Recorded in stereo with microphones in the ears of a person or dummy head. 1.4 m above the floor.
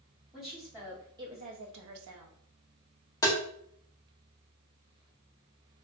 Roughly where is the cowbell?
No cowbell in this recording.